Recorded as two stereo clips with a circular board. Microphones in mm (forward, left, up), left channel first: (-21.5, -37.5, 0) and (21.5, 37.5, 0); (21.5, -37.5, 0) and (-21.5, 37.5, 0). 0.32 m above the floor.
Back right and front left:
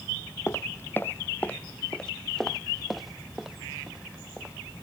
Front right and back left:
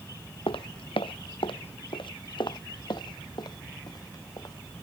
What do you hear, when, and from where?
0.5 s footsteps: 60° right; by 4.5 s 15° right